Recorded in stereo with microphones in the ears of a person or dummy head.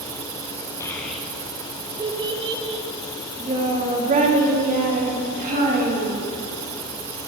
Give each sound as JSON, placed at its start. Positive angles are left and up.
{"t": 0.8, "sound": "a child speaking", "side_deg": 15, "distance_m": 0.6}